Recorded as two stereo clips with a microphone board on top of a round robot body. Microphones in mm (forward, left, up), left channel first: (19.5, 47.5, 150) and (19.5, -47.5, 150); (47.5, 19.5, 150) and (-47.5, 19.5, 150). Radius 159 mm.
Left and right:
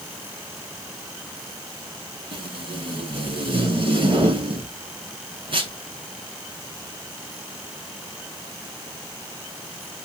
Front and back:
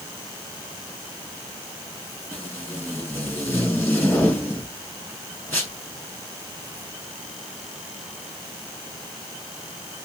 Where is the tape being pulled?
65° right, 1.9 m.